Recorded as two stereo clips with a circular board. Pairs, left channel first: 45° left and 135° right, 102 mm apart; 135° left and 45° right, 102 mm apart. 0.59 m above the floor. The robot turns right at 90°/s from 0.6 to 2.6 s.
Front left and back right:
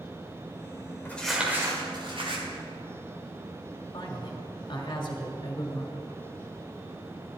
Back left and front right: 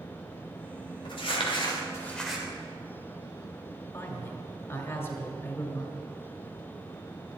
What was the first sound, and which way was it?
Crumpling, 115° left.